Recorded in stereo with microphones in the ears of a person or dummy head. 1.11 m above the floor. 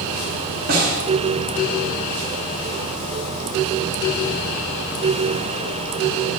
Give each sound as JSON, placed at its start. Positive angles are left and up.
{"t": 0.7, "sound": "a snare drum", "side_deg": -45, "distance_m": 5.5}